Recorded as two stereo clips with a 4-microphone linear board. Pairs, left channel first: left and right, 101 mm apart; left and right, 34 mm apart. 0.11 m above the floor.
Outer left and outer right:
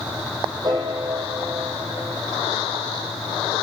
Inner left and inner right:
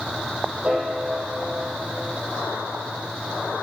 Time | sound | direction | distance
0.6 | a piano | 40° right (ahead or behind) | 3 m